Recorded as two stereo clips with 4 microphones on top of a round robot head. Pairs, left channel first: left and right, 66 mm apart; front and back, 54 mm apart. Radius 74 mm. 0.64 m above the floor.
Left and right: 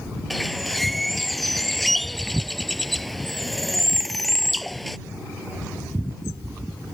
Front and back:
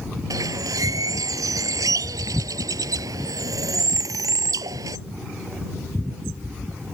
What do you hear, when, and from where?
0.3 s a bird: straight behind